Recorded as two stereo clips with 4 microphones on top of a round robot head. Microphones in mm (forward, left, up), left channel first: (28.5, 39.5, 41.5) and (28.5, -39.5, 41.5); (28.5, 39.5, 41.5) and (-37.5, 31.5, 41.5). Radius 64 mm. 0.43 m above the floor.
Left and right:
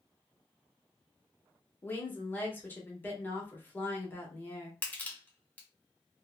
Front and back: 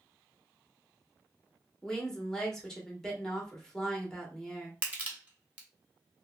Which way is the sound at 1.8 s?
75° left.